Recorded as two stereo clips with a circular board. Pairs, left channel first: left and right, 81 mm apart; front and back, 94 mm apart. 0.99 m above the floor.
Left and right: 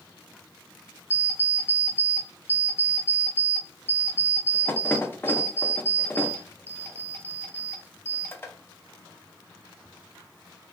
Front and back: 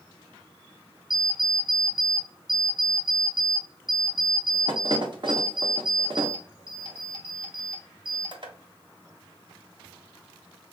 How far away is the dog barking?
No dog barking in this recording.